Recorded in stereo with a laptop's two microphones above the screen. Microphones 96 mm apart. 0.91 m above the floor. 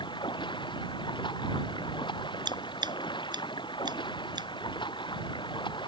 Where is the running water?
55° left (ahead or behind).